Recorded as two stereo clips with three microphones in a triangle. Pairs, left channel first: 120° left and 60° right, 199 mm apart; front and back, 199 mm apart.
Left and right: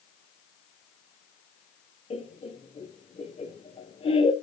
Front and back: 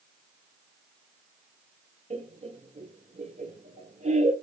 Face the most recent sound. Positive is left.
turn(degrees=160)